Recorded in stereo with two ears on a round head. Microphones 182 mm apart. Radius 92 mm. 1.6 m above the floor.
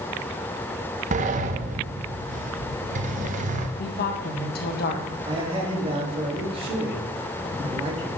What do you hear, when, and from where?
1.1 s a sliding door: 40° right (ahead or behind), 0.9 m
3.8 s a woman speaking: 55° left (ahead or behind), 1.8 m
5.2 s a man speaking: 30° right (ahead or behind), 3 m